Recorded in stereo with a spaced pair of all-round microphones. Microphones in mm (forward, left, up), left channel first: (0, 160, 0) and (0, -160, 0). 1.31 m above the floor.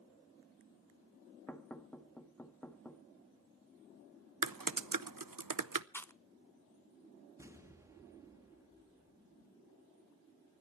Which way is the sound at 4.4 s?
85° right.